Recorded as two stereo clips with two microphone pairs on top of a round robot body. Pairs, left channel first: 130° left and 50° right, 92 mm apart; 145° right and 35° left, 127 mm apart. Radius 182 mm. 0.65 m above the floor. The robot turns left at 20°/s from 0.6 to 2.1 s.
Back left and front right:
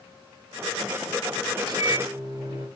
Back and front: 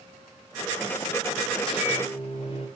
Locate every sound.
1.6 s a microwave: 90° right, 3.5 m; by 2.7 s 100° right, 3.5 m